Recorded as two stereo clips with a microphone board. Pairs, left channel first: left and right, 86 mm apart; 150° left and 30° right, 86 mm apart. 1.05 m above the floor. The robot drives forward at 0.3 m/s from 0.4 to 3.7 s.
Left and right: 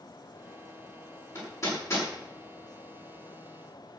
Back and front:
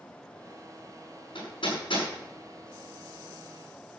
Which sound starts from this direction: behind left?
Hammering, at 1.4 s.